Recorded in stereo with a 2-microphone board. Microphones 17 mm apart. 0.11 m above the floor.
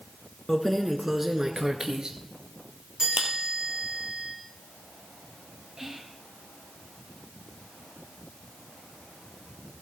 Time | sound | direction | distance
0.5 | keys jangling | 20° left (ahead or behind) | 0.9 m
3.0 | a chime | 50° right (ahead or behind) | 7.5 m
5.8 | whispering | 35° right (ahead or behind) | 2.5 m